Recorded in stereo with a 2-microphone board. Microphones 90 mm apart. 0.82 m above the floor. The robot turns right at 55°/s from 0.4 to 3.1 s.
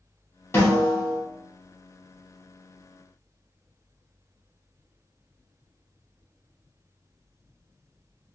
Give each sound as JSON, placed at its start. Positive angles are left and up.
{"t": 0.5, "sound": "a snare drum", "azimuth_deg": 30, "distance_m": 1.4}